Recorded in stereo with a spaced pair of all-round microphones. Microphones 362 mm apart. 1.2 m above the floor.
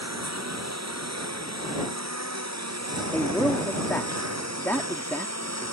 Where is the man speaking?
5° left (ahead or behind).